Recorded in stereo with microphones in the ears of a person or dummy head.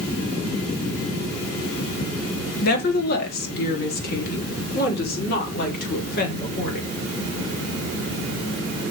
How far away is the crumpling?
I don't hear crumpling.